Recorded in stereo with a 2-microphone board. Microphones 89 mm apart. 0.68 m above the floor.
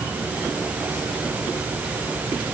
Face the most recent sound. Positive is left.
No sound to turn to.